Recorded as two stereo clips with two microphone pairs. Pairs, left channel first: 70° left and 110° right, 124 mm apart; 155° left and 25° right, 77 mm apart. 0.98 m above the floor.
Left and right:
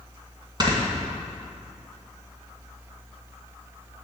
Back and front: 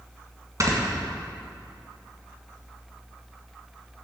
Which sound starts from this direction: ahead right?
Snoring, at 0.6 s.